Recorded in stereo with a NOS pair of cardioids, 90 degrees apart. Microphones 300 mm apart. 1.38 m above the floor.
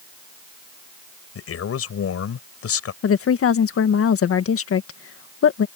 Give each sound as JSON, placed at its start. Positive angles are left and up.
{"t": 1.4, "sound": "a man speaking", "azimuth_deg": 55}
{"t": 3.0, "sound": "a woman speaking", "azimuth_deg": 55}